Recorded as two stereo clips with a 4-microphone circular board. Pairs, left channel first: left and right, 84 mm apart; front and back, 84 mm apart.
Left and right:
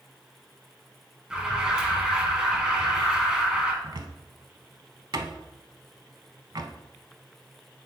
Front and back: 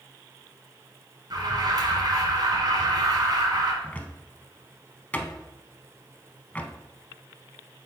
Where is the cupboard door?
70° right, 0.6 m.